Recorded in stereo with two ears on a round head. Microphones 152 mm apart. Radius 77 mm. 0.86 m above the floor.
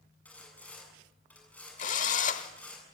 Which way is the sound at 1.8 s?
45° left (ahead or behind).